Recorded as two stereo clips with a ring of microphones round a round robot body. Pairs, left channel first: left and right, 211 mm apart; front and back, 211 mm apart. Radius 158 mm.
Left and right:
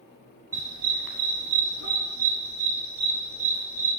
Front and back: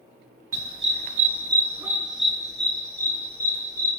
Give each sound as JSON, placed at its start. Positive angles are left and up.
{"t": 0.5, "sound": "a dog barking", "azimuth_deg": -170, "distance_m": 1.0}